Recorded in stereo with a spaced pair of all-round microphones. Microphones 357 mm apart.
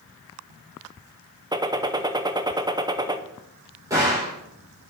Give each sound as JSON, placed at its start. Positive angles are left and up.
{"t": 1.5, "sound": "a gunshot", "side_deg": -10, "distance_m": 0.5}
{"t": 3.9, "sound": "a gunshot", "side_deg": -10, "distance_m": 5.0}